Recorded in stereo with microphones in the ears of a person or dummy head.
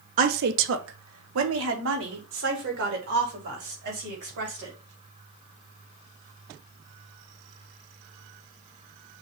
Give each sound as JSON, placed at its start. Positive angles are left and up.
{"t": 0.2, "sound": "a woman speaking", "side_deg": -45, "distance_m": 0.6}